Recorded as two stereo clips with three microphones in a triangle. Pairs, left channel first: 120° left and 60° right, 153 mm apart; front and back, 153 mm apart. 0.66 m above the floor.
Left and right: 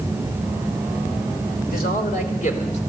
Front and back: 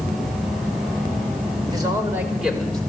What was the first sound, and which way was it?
A man speaking, 120° left.